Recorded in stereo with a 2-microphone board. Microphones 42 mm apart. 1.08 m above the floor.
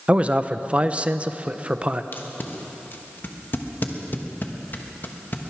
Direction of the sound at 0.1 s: 30° right (ahead or behind).